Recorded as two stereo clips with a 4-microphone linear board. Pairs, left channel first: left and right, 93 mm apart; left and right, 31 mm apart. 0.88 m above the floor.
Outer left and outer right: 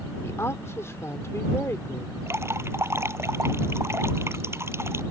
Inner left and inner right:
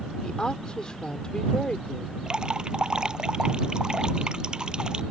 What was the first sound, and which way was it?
A woman speaking, 30° left (ahead or behind).